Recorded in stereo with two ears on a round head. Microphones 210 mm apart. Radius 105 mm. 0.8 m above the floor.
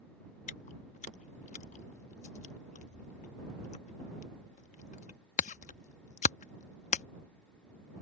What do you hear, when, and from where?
0.5 s chewing: 30° left (ahead or behind)